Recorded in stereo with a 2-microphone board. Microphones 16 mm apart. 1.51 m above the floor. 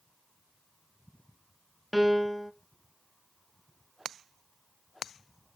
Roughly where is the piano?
Centre.